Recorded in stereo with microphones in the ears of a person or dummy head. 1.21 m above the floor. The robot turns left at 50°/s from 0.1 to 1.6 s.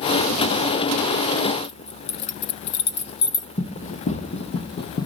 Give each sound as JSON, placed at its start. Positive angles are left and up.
{"t": 1.6, "sound": "keys jangling", "side_deg": 55, "distance_m": 1.0}
{"t": 3.6, "sound": "running footsteps", "side_deg": 45, "distance_m": 2.0}